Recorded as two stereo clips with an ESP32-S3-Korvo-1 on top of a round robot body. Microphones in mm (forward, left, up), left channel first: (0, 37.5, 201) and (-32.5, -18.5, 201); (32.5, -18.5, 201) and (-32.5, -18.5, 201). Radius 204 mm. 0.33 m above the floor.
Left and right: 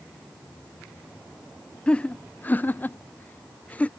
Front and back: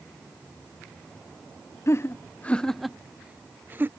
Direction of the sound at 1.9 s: 5° right.